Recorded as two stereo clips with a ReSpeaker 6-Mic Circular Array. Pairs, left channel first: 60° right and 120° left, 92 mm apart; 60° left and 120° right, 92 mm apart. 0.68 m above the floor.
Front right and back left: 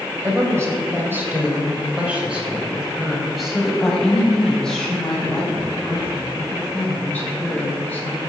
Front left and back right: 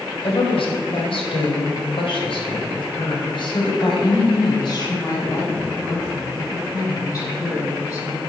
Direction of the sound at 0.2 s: 65° left.